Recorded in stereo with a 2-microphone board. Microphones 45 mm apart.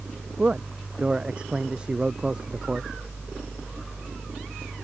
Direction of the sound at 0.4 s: 25° right (ahead or behind).